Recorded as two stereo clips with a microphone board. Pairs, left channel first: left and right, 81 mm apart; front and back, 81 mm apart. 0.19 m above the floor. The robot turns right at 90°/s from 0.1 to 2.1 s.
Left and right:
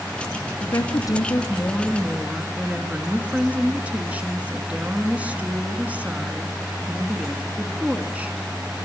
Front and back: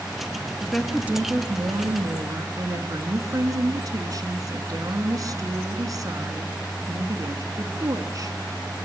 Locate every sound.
0.6 s a woman speaking: 70° left, 2.5 m; by 8.4 s 155° right, 2.5 m